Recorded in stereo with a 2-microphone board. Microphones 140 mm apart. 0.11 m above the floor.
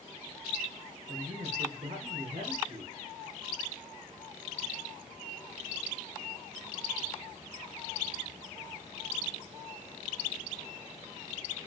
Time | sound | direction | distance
1.1 | a man speaking | 75° right (ahead or behind) | 5.5 m